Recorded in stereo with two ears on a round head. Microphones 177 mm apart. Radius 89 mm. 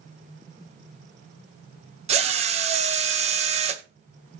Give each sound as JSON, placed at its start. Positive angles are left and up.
{"t": 2.1, "sound": "a drill", "side_deg": -35, "distance_m": 0.9}